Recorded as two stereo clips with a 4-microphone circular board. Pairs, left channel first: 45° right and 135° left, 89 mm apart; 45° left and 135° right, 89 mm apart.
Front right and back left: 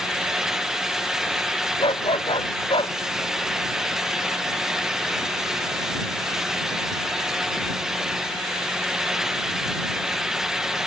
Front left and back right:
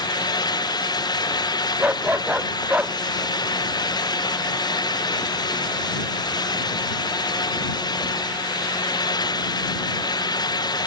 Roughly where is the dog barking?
Ahead right.